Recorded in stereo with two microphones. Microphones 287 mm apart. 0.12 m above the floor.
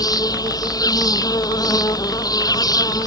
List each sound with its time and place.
0.0 s an insect: 15° left (ahead or behind)